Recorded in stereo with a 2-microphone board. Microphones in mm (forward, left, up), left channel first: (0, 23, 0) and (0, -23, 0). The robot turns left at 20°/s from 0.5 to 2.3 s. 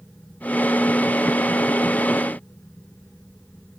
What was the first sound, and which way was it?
Only background noise.